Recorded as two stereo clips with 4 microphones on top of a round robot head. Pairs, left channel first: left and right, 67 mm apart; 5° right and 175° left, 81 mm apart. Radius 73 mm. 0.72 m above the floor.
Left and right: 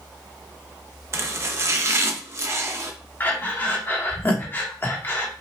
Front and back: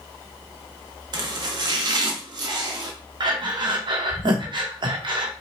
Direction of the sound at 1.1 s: 140° right.